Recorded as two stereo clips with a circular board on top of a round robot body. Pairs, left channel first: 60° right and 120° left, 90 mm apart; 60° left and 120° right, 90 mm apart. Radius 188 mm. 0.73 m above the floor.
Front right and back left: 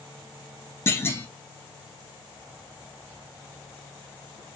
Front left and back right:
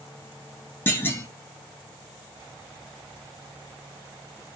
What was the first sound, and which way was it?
A clunk, straight ahead.